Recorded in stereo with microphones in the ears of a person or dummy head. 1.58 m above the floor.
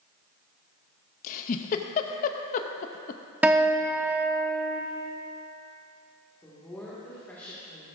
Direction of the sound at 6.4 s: 5° left (ahead or behind).